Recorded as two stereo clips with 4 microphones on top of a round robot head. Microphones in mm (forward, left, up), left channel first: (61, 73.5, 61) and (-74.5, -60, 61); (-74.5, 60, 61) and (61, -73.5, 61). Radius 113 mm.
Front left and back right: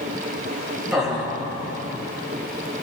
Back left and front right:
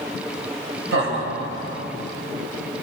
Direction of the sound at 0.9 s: 50° right.